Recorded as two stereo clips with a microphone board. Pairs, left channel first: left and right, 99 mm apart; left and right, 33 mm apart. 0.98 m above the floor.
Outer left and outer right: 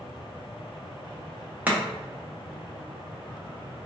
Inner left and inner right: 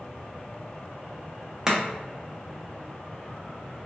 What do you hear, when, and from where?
1.7 s chopping: 15° right (ahead or behind), 0.8 m